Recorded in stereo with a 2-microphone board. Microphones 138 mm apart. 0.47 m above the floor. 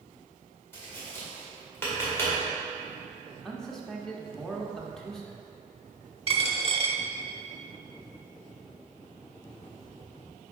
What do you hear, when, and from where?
0.7 s tapping: 15° left (ahead or behind), 1.9 m
3.3 s a man speaking: 5° left (ahead or behind), 0.8 m
6.3 s a dropped coin: 45° right (ahead or behind), 0.7 m